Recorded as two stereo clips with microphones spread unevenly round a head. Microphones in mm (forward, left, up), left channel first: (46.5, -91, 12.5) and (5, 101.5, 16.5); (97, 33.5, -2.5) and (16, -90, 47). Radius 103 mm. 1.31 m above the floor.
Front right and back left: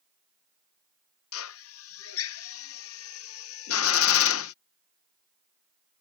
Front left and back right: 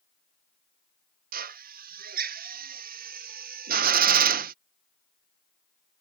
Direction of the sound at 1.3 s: 105° right.